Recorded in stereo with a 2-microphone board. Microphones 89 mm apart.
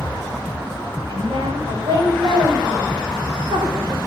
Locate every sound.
1.1 s a woman speaking: 75° right (ahead or behind), 7 m; by 4.0 s 55° right (ahead or behind), 4 m